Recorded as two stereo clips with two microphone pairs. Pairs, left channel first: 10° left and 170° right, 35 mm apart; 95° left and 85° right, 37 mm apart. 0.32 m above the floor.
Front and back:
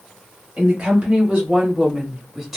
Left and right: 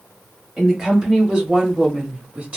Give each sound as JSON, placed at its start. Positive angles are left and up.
{"t": 0.6, "sound": "a woman speaking", "azimuth_deg": -150, "distance_m": 1.5}